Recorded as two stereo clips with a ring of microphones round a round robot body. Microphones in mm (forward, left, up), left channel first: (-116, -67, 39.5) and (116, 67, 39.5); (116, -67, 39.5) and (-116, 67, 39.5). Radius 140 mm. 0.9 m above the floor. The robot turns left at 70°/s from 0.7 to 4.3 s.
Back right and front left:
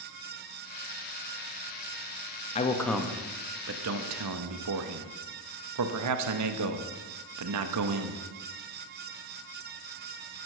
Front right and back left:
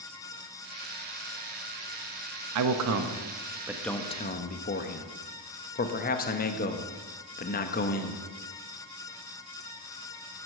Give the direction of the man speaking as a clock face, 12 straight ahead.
7 o'clock.